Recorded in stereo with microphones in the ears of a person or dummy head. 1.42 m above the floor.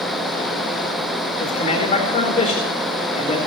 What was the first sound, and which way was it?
A man speaking, 40° left (ahead or behind).